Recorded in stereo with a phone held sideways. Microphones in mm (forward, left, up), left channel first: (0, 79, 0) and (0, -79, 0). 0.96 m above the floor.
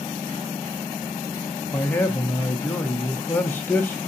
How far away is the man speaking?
About 0.7 m.